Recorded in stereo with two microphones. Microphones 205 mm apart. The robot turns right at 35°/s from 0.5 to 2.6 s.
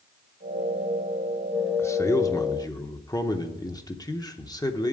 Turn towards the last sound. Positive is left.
turn(degrees=20)  # may be behind; listen again after turning